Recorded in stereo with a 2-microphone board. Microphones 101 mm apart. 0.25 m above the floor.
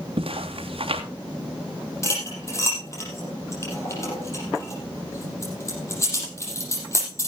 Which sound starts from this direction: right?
Footsteps, at 0.2 s.